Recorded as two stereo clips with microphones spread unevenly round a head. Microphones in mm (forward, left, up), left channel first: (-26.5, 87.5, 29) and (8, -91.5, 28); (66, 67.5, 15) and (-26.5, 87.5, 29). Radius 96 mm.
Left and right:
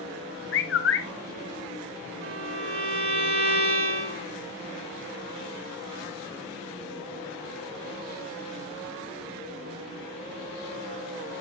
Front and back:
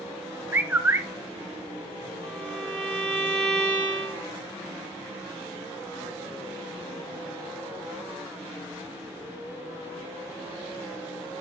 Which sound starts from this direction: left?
A bird, at 0.5 s.